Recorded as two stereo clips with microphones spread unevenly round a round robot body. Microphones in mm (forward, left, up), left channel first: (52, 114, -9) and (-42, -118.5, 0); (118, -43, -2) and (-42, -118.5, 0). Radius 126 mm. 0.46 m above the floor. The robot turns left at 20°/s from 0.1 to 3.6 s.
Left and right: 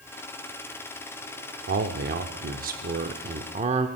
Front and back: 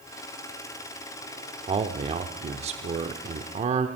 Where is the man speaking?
120° right, 0.8 m; by 3.9 s 160° right, 0.8 m.